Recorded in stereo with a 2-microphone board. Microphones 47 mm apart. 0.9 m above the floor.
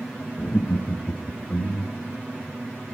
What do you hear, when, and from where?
0.4 s laughter: 55° left (ahead or behind), 1.0 m; by 2.1 s 65° left (ahead or behind), 2.5 m